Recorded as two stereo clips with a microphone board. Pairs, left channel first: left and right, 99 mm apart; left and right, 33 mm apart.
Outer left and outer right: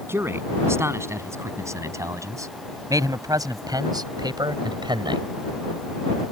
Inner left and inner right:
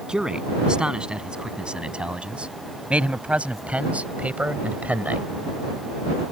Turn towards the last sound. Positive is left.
turn(degrees=-55)  # may be behind; listen again after turning